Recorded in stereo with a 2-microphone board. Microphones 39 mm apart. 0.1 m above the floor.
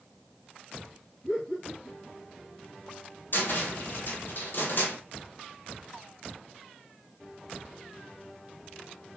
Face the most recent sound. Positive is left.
turn(degrees=60)  # may be behind; listen again after turning